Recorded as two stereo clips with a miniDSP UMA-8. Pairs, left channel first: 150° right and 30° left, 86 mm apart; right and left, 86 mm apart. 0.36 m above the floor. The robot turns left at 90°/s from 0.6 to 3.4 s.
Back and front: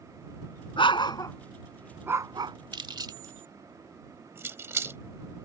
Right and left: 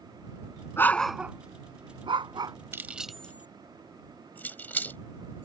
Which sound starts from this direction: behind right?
A dog barking, at 0.8 s.